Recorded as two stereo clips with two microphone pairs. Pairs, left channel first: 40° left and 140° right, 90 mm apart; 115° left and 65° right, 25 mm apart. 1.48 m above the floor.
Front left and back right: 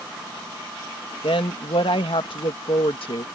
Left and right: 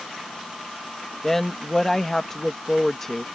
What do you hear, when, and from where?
1.2 s a woman speaking: 35° left